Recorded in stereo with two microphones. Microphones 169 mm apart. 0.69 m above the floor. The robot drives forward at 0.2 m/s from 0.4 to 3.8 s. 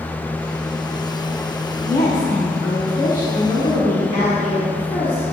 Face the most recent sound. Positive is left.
turn(degrees=50)  # may be behind; listen again after turning